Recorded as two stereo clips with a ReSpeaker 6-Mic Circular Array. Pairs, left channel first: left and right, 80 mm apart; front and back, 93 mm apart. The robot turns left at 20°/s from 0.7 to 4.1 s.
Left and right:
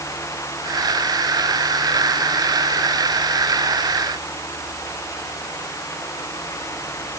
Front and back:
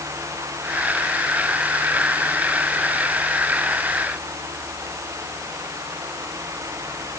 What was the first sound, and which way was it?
Only background noise.